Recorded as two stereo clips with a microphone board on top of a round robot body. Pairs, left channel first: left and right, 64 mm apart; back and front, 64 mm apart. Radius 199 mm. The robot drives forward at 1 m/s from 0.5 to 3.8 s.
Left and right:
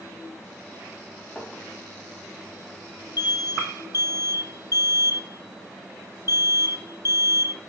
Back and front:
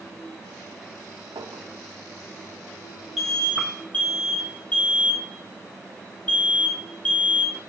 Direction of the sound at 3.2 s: 90° left.